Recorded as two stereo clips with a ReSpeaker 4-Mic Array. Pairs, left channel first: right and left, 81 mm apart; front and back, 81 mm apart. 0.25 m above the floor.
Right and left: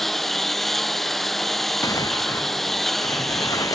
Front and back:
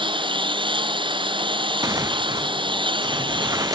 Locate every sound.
0.0 s a lawn mower: straight behind
1.8 s tearing paper: 135° right